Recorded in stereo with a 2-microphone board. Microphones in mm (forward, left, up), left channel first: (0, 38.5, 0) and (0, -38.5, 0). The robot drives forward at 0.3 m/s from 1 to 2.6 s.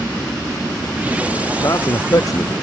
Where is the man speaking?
45° left (ahead or behind).